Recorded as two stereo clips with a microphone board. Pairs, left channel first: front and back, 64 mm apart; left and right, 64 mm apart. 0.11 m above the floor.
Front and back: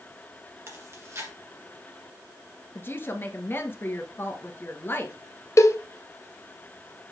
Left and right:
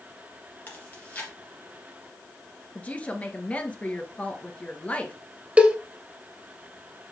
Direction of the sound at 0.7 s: 150° left.